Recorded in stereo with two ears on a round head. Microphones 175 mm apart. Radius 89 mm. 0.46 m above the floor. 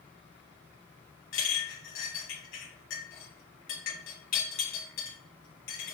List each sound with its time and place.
1.3 s a clink: 65° left (ahead or behind), 2.0 m